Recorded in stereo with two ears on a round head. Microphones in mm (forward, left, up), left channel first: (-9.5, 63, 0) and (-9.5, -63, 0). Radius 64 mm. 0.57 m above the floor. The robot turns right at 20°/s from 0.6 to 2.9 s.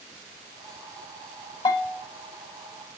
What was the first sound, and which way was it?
A bell, 30° left (ahead or behind).